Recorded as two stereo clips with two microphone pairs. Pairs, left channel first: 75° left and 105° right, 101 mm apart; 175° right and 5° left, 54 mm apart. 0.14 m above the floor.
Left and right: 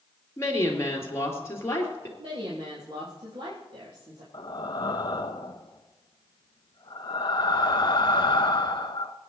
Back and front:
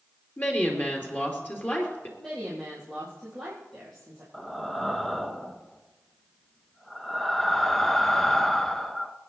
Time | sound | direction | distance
0.4 | a woman speaking | 130° left | 2.5 m
2.2 | a woman speaking | 90° right | 4 m
4.3 | breathing | 100° left | 0.6 m